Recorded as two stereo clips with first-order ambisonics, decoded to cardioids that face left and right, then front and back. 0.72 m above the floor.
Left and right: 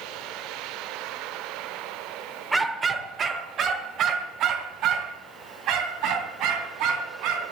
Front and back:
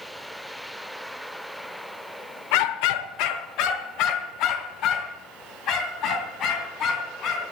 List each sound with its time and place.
2.5 s a dog barking: 5° right, 1.0 m; by 7.5 s 55° right, 3.5 m